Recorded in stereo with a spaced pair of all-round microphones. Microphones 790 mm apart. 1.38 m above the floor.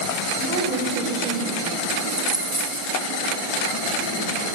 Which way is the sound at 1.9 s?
40° right (ahead or behind).